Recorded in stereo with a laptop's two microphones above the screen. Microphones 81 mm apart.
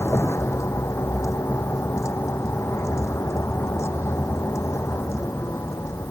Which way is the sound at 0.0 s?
35° left (ahead or behind).